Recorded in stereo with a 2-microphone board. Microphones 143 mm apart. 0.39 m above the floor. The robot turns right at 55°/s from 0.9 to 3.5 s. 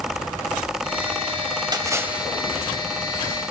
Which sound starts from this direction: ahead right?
A splash, at 1.7 s.